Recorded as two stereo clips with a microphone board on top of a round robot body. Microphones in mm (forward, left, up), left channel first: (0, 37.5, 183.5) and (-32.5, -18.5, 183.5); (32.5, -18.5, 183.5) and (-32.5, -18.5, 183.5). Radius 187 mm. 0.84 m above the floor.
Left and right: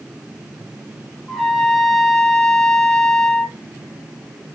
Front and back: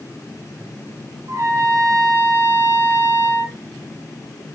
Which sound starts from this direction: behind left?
A trumpet, at 1.3 s.